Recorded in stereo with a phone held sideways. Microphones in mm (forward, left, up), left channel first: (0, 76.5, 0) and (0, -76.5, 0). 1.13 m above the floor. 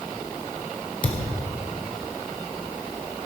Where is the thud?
60° left (ahead or behind), 1.3 m.